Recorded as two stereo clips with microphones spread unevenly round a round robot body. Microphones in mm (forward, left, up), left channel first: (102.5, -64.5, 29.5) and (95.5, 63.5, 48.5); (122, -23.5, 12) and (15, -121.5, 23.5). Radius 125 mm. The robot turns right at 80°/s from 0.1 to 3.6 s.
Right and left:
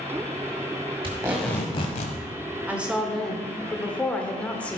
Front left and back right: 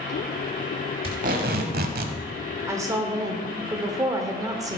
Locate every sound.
1.0 s tape being pulled: 155° left, 1.2 m; by 2.2 s 115° right, 1.2 m
2.7 s a woman speaking: 175° left, 0.9 m; by 4.8 s 110° right, 0.9 m